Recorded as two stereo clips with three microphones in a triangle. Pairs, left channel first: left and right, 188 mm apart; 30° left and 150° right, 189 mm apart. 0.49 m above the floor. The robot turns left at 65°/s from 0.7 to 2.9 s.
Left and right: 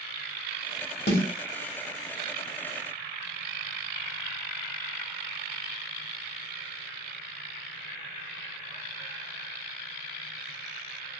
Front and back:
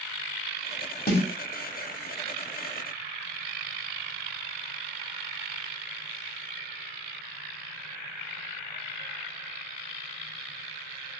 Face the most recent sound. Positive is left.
turn(degrees=-55)